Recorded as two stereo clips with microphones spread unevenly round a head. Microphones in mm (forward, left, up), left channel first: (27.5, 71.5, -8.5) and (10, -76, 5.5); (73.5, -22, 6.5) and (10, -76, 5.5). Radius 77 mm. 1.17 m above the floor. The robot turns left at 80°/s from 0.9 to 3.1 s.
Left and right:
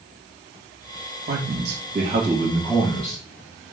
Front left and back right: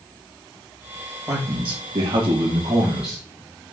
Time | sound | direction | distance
1.3 | a man speaking | 85° right | 1.8 m